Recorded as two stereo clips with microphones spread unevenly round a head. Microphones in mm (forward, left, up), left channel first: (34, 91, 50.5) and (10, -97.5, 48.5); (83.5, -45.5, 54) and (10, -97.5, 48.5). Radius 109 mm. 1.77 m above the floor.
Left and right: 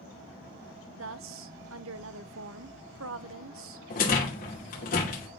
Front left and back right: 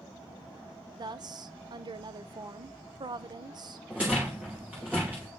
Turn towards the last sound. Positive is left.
turn(degrees=135)